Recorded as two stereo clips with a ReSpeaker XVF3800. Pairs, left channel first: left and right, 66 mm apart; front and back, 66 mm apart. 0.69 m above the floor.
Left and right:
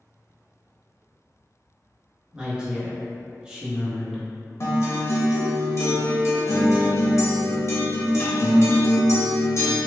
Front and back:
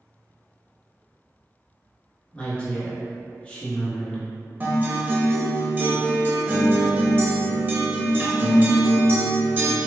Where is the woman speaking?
35° right, 0.9 m.